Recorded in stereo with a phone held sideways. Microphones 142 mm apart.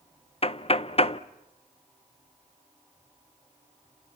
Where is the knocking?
45° left (ahead or behind), 0.7 m.